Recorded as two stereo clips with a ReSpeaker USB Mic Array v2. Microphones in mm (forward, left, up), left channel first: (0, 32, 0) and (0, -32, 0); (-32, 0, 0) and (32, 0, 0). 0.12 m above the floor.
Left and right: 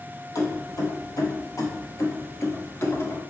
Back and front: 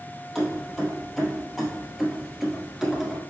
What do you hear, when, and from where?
0.3 s keys jangling: 90° left, 2.5 m; by 3.2 s 85° left, 1.0 m